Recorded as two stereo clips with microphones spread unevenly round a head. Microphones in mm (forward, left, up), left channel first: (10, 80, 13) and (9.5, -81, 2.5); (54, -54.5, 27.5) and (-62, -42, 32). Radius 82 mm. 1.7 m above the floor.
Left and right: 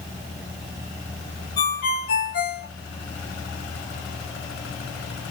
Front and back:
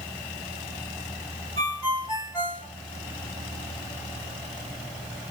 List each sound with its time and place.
1.6 s a ringtone: 65° left, 1.8 m